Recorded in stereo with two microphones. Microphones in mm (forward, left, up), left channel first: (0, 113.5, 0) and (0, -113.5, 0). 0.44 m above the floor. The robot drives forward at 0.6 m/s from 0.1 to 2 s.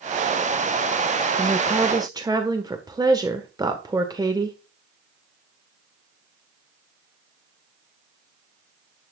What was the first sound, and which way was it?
A woman speaking, 20° right (ahead or behind).